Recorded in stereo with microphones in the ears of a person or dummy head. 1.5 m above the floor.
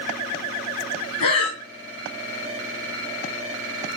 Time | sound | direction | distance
1.2 | breathing | 45° left (ahead or behind) | 1.2 m